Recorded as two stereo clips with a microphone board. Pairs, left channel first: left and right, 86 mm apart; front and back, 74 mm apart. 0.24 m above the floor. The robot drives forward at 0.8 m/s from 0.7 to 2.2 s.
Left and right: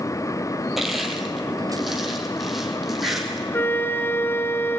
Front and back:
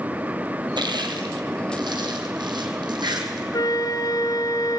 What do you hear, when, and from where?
0.8 s crushing: 175° right, 2.5 m; by 3.4 s straight behind, 3.5 m
3.5 s a flute: 25° left, 1.0 m